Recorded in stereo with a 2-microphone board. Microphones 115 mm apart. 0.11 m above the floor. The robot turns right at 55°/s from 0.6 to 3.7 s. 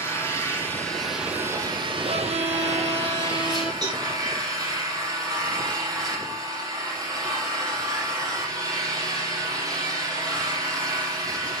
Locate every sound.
0.0 s an engine running: 155° left, 4 m; by 11.6 s 35° right, 4 m
2.0 s a violin: 95° right, 1.7 m; by 3.7 s 5° right, 1.7 m
3.8 s a cowbell: 40° right (ahead or behind), 7 m